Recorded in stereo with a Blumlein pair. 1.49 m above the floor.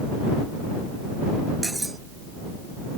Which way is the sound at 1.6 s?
5° right.